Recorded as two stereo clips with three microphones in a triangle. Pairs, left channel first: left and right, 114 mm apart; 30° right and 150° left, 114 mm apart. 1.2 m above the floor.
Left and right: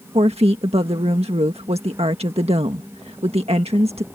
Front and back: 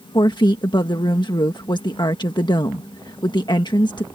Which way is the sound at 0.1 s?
75° right.